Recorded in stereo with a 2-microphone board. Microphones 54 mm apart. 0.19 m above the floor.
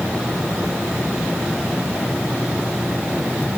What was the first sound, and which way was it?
Only background noise.